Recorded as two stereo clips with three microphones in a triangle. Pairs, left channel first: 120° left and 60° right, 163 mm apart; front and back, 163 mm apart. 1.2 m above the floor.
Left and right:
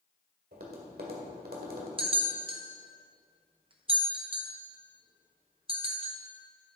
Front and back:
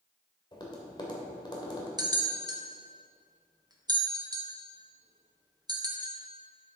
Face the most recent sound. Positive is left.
turn(degrees=-115)